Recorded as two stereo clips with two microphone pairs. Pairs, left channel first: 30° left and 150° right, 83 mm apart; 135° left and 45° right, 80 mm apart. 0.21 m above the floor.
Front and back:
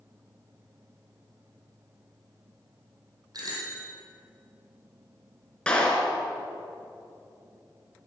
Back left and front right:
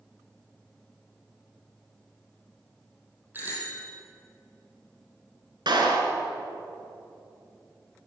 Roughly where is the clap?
Ahead right.